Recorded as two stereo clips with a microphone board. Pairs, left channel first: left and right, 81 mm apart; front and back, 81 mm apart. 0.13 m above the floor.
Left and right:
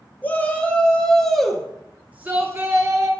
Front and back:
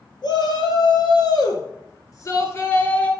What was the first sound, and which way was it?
A shout, 20° left.